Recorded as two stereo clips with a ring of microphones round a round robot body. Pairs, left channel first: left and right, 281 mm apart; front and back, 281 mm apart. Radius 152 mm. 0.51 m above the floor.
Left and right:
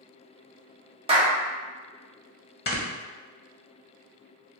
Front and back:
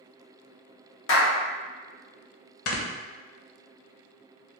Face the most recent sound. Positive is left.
turn(degrees=35)